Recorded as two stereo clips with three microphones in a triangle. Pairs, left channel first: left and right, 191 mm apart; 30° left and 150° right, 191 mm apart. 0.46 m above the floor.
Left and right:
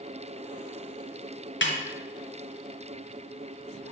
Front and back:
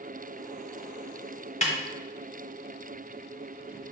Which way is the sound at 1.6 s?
80° left.